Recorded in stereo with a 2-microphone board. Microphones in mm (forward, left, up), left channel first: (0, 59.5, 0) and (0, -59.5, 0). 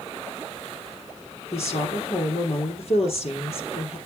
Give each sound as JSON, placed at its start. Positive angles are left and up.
{"t": 1.5, "sound": "a woman speaking", "side_deg": 55, "distance_m": 4.0}